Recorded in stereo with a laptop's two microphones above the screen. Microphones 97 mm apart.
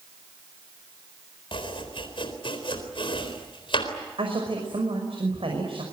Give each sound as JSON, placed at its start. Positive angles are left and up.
{"t": 1.5, "sound": "chopping", "side_deg": 60, "distance_m": 4.0}
{"t": 4.2, "sound": "a woman speaking", "side_deg": -70, "distance_m": 5.5}